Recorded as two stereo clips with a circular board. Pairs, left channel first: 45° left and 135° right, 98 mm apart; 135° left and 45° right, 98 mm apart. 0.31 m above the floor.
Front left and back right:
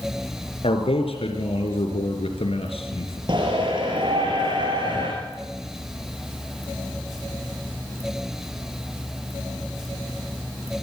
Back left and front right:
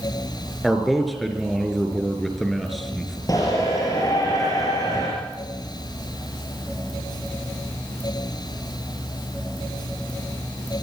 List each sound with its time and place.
0.6 s a man speaking: 45° left, 4 m
3.3 s a shout: 170° right, 6 m